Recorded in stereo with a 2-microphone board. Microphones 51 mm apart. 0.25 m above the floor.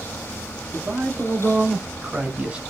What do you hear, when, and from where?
0.7 s a man speaking: 60° right (ahead or behind), 3.5 m; by 2.6 s 20° right (ahead or behind), 2 m